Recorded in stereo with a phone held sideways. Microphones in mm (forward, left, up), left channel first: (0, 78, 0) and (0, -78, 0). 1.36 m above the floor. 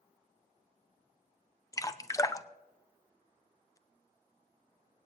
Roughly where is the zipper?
I don't hear a zipper.